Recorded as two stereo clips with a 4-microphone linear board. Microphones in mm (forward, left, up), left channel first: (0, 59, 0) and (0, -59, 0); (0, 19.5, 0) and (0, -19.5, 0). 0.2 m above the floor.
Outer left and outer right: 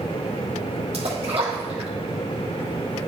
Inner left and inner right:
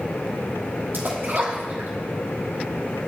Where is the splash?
60° right (ahead or behind), 2.5 m.